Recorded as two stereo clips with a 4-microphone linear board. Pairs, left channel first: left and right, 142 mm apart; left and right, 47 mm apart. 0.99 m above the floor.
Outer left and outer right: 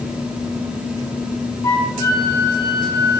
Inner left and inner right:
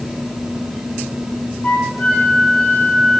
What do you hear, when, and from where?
1.6 s a flute: 30° left (ahead or behind), 0.7 m